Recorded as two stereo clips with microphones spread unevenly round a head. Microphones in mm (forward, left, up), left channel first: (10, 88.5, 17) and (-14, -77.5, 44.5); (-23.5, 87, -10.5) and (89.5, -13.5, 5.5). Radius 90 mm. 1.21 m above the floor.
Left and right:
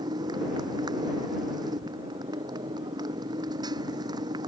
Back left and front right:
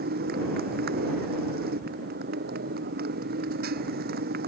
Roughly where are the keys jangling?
I don't hear keys jangling.